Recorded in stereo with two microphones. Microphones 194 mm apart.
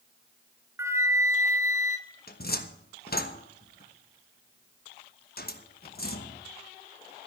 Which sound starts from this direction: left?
A cupboard door, at 2.3 s.